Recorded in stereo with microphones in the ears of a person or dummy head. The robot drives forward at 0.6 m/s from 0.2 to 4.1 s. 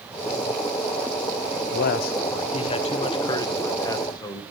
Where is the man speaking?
60° left (ahead or behind), 0.6 m; by 4.4 s 20° left (ahead or behind), 1.8 m.